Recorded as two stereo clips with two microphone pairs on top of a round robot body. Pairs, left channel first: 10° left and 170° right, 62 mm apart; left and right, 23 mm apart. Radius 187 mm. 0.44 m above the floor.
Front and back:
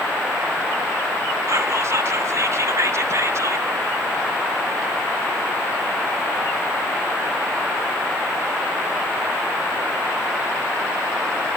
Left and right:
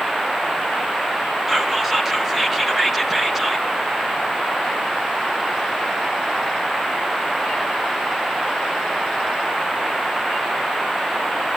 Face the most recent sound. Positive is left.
turn(degrees=180)